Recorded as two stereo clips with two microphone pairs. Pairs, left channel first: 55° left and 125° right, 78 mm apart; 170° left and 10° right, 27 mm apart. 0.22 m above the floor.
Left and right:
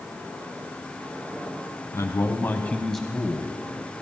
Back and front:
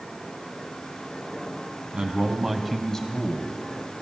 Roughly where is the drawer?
I don't hear a drawer.